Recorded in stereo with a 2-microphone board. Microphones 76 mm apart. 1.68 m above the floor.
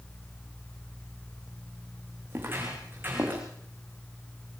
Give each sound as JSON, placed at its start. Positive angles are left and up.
{"t": 2.3, "sound": "footsteps", "side_deg": -35, "distance_m": 7.5}